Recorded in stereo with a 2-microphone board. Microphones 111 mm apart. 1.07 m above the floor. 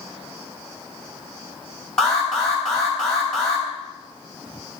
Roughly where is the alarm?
Centre.